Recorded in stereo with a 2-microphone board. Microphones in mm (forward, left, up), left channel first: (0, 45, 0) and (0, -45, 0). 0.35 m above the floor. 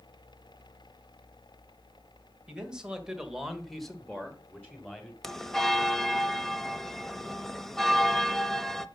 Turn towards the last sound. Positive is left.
turn(degrees=5)  # may be behind; listen again after turning